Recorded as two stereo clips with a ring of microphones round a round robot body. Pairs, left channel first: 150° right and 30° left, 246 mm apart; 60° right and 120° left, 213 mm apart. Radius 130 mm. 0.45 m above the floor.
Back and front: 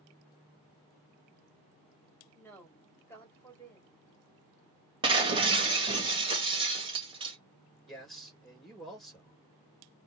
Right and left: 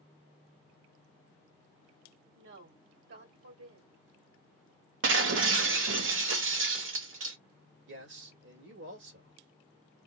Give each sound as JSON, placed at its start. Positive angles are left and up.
{"t": 2.4, "sound": "a woman speaking", "azimuth_deg": 130, "distance_m": 2.5}
{"t": 5.0, "sound": "breaking glass", "azimuth_deg": 100, "distance_m": 1.3}
{"t": 7.9, "sound": "a man speaking", "azimuth_deg": 120, "distance_m": 2.5}